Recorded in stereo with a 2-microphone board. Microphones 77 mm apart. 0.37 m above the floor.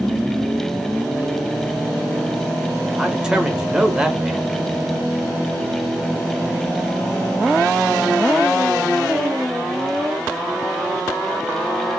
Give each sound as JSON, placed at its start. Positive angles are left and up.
{"t": 3.0, "sound": "a man speaking", "side_deg": -10, "distance_m": 0.9}